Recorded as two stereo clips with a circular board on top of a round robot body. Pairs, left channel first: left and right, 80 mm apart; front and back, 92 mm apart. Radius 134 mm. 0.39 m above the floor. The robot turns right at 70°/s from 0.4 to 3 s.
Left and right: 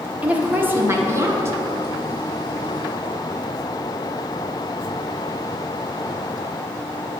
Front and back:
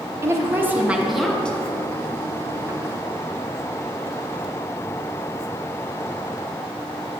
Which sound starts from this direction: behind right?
A woman speaking, at 0.2 s.